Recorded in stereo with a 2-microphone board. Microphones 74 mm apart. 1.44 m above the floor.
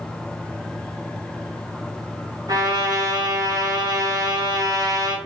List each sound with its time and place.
2.5 s a trumpet: 60° right (ahead or behind), 1.0 m